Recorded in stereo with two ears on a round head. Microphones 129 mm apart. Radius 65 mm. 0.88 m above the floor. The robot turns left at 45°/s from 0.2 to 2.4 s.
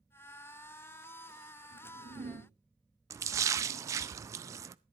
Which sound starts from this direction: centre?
A splash, at 3.1 s.